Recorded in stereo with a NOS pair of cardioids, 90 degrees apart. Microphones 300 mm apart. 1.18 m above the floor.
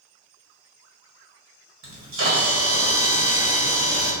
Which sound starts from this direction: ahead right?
A camera shutter, at 1.8 s.